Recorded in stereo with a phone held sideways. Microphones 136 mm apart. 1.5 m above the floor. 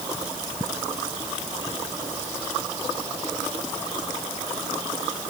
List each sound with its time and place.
Only background noise.